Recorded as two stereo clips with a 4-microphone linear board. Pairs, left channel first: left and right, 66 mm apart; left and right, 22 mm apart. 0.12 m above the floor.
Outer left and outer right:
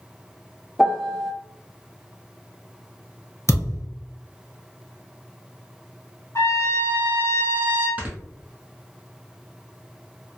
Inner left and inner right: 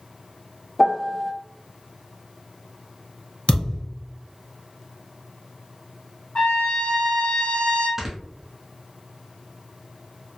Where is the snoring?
25° right (ahead or behind), 0.8 m.